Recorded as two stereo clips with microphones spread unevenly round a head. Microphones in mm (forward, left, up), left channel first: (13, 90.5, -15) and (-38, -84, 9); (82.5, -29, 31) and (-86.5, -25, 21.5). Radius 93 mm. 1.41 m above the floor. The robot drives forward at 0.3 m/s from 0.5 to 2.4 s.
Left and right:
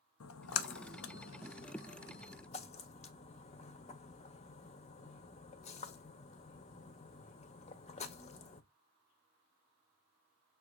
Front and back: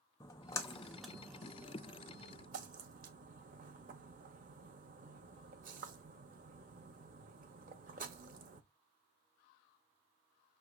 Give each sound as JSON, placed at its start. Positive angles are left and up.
{"t": 0.2, "sound": "a splash", "azimuth_deg": 70, "distance_m": 0.5}